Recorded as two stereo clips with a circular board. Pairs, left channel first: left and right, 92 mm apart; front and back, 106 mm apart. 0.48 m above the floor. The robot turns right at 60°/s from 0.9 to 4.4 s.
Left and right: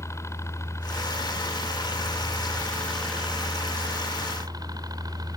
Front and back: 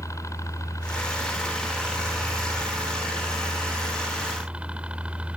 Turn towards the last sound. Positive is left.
turn(degrees=-105)